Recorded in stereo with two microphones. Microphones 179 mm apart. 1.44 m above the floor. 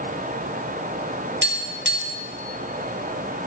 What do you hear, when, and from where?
1.4 s tapping: 75° right (ahead or behind), 2.5 m